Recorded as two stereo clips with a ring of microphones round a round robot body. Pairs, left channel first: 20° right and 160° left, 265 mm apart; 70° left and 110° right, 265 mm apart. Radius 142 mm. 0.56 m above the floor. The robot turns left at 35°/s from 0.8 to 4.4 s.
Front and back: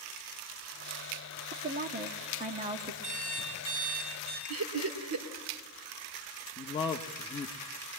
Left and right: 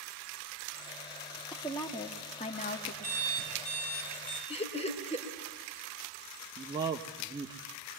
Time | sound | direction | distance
1.5 | a woman speaking | 145° left | 1.4 m
3.0 | an alarm clock | 130° left | 9 m
4.5 | laughter | 135° left | 2.5 m
6.6 | a man speaking | 65° right | 1.1 m